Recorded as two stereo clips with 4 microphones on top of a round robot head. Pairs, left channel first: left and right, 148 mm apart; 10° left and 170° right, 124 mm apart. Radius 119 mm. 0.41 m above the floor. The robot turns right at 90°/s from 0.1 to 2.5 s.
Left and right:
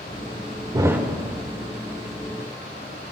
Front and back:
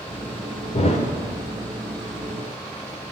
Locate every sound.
0.7 s a thud: 30° right, 0.7 m; by 1.1 s straight ahead, 0.7 m